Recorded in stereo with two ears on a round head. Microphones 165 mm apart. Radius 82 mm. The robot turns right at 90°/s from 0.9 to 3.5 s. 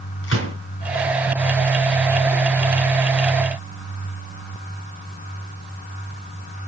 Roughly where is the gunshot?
Left.